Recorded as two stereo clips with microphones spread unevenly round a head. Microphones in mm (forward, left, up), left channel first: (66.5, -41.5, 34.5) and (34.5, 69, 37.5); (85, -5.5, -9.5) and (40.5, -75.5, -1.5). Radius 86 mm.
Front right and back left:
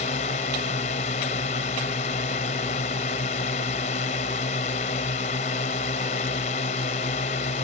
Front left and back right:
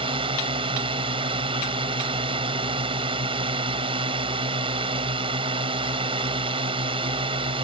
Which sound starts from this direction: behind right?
A drone, at 0.0 s.